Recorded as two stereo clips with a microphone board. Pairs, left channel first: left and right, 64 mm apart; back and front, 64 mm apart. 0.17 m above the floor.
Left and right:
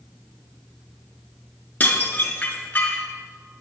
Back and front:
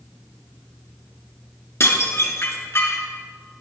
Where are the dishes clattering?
145° left, 1.4 m.